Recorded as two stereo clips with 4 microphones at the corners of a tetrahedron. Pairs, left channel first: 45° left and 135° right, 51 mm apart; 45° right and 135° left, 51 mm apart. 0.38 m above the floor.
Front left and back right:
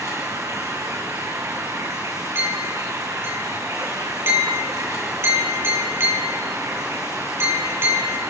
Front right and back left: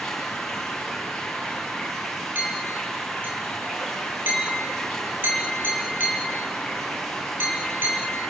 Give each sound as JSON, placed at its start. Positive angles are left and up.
{"t": 0.0, "sound": "running water", "azimuth_deg": -130, "distance_m": 4.5}
{"t": 2.4, "sound": "a clink", "azimuth_deg": -175, "distance_m": 6.0}